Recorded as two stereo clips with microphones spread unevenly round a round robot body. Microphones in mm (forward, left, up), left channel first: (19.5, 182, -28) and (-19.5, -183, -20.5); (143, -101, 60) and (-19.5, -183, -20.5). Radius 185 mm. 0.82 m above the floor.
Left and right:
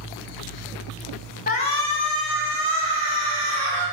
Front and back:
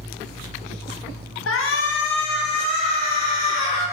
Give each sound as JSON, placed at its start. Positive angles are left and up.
{"t": 1.5, "sound": "a shout", "azimuth_deg": 20, "distance_m": 1.1}